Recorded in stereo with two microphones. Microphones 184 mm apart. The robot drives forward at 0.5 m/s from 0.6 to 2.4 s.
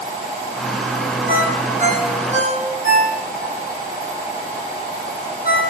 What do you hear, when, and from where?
1.3 s a ringtone: 45° right (ahead or behind), 5.5 m